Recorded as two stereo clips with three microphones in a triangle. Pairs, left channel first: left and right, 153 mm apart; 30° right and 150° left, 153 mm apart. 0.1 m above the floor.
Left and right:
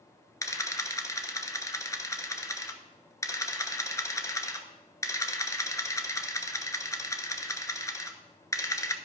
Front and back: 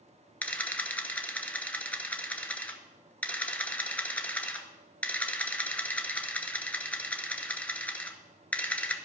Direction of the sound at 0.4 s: 40° left.